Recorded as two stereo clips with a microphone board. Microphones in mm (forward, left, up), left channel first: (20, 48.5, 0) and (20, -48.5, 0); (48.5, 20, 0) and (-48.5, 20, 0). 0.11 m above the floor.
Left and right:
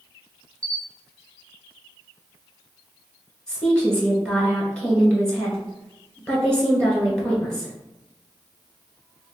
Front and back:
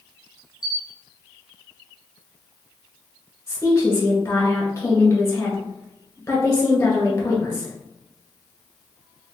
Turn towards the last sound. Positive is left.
turn(degrees=20)